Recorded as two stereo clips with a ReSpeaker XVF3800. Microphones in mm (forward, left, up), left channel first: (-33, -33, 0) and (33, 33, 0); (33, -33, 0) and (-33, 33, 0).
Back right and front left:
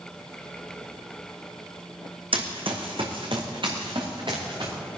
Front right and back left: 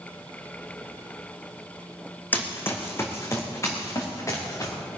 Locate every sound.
2.3 s running footsteps: 25° left, 2 m; by 4.7 s 10° left, 4.5 m